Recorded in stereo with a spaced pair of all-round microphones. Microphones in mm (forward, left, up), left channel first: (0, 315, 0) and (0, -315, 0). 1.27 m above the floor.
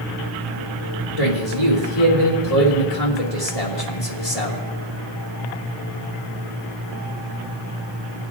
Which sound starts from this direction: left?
A man speaking, at 1.2 s.